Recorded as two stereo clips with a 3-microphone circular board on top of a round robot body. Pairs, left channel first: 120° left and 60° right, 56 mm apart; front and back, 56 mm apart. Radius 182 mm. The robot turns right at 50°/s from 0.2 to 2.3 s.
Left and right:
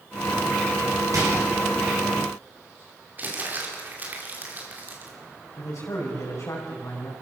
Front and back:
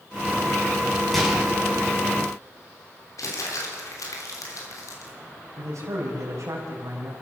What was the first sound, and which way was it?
A microwave, 85° right.